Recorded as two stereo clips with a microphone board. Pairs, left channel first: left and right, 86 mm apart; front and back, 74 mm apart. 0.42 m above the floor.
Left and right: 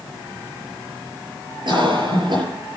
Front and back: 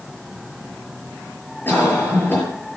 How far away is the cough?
About 8 m.